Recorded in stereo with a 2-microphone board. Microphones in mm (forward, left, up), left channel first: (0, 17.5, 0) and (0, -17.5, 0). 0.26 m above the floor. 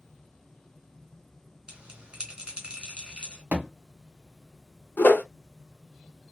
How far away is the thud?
About 1.0 m.